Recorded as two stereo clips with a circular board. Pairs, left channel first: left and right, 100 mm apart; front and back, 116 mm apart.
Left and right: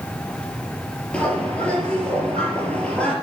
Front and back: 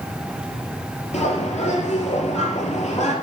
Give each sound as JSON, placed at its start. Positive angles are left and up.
{"t": 1.1, "sound": "a bird", "azimuth_deg": 10, "distance_m": 4.0}